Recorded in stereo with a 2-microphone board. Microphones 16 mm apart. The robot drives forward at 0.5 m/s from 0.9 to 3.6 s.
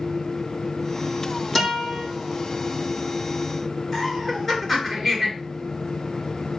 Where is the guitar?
20° left (ahead or behind), 5 m.